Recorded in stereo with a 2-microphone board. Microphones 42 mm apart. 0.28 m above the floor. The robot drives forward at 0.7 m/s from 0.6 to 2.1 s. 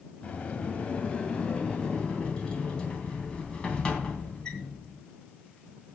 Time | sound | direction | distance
0.2 | a sliding door | 30° left (ahead or behind) | 2.0 m